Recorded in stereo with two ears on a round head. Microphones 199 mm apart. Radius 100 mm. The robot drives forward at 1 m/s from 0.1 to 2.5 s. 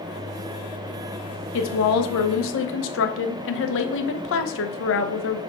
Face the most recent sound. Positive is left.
turn(degrees=60)  # may be behind; listen again after turning